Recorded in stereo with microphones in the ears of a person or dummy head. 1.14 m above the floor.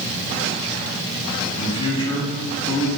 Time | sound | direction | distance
1.6 | a man speaking | 30° left (ahead or behind) | 2 m